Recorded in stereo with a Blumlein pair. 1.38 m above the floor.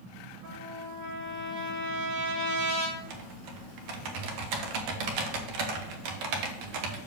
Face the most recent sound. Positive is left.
turn(degrees=-45)